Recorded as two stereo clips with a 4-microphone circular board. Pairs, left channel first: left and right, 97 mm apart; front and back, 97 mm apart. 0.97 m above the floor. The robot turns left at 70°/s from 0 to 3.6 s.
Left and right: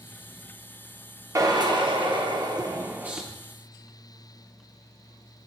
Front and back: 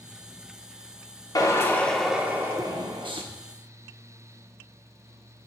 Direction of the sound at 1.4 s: 40° right.